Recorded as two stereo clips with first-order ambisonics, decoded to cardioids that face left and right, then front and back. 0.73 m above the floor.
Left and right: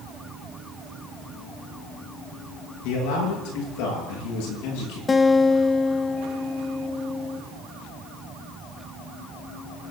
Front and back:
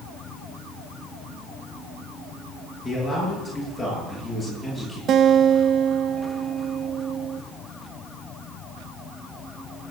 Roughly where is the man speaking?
Left.